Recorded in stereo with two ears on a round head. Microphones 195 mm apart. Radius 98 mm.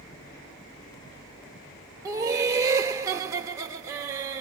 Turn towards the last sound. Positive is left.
turn(degrees=-15)  # may be behind; listen again after turning